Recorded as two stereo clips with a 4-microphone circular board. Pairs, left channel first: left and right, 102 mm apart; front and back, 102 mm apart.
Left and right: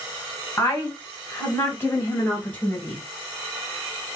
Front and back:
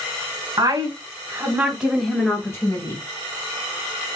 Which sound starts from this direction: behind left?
A woman speaking, at 0.6 s.